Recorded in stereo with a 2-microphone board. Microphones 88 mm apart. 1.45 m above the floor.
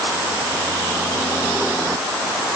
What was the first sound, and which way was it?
Only background noise.